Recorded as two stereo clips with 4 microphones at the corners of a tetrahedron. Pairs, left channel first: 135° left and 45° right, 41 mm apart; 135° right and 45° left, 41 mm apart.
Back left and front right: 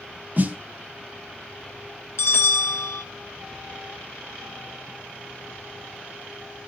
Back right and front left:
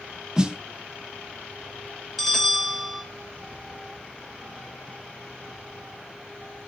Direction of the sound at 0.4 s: 25° right.